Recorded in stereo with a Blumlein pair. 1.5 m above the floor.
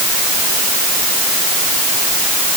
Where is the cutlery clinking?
I don't hear cutlery clinking.